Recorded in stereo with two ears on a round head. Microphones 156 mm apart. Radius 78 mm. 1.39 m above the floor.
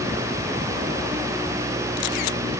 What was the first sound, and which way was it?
Only background noise.